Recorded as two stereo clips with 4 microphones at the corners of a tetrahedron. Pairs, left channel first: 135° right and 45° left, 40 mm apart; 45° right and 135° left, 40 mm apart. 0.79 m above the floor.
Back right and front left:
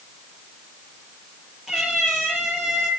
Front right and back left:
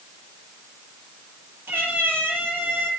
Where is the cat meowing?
125° left, 9 m.